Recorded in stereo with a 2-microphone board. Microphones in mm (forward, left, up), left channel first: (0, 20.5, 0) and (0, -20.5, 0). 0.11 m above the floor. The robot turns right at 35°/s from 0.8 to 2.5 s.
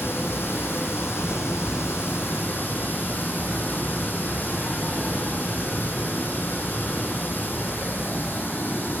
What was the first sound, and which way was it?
Running water, 70° left.